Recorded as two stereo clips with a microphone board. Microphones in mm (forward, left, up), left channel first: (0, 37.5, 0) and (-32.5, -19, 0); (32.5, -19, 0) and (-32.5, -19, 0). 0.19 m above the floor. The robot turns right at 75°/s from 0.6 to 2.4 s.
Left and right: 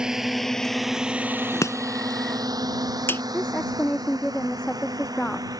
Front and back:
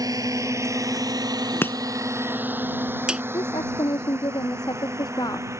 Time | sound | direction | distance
0.0 | a drone | 160° left | ?
1.6 | chopping | 45° left | ?
3.3 | a woman speaking | 15° right | ?